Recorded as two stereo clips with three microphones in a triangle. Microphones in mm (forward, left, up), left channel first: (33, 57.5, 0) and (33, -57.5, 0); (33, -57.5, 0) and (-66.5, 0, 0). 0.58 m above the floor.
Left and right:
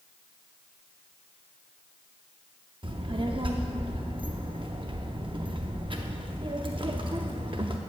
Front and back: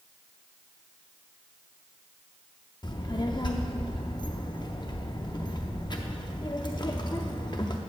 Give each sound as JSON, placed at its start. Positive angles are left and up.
{"t": 2.8, "sound": "a child speaking", "azimuth_deg": -70, "distance_m": 0.6}